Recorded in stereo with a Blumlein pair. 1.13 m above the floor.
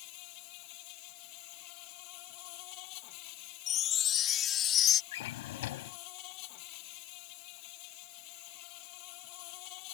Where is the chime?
30° left.